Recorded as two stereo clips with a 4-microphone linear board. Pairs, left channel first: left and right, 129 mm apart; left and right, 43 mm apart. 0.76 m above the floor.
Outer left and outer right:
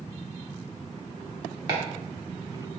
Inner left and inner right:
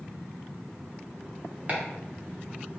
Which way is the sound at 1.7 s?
35° right (ahead or behind).